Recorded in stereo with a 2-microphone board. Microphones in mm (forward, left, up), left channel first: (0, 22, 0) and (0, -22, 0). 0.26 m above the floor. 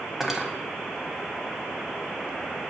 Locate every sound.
0.2 s cutlery clinking: 10° right (ahead or behind), 0.9 m